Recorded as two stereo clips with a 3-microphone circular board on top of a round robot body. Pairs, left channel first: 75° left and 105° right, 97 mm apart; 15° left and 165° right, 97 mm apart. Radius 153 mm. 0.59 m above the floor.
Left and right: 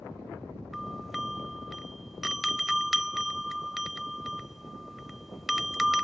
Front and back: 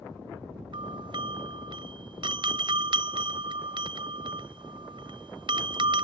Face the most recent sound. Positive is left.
turn(degrees=165)